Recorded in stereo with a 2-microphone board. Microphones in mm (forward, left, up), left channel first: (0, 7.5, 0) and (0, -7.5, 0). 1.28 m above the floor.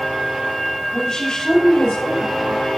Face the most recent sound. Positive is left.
turn(degrees=70)  # may be behind; listen again after turning